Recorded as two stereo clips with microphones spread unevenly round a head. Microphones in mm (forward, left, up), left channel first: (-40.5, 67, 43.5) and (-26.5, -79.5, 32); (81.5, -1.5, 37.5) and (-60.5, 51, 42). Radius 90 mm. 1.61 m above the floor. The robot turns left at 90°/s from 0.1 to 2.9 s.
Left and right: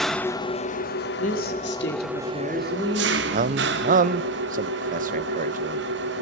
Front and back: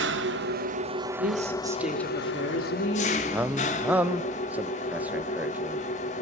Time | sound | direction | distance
0.0 | an engine running | straight behind | 1.5 m
1.2 | a woman speaking | 135° left | 3.5 m
3.3 | a man speaking | 120° right | 0.9 m